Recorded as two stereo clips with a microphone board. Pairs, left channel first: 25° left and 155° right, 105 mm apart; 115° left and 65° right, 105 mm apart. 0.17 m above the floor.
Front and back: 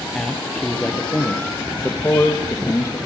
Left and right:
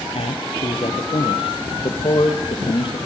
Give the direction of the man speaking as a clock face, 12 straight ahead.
8 o'clock.